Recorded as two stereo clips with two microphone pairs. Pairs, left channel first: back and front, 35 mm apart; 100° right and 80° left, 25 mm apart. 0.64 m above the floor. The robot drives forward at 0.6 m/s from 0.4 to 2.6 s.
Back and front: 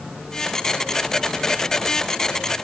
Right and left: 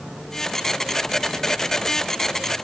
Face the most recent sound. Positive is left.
No sound to turn to.